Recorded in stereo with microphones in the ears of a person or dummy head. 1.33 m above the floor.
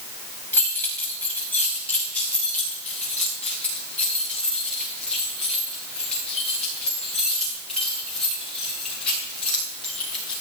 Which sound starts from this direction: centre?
Keys jangling, at 0.5 s.